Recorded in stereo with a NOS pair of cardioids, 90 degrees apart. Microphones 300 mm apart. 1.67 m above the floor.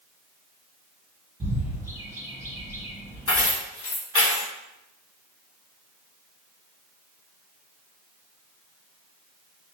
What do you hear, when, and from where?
1.4 s a bird: 10° right, 1.6 m
3.3 s keys jangling: 45° left, 1.8 m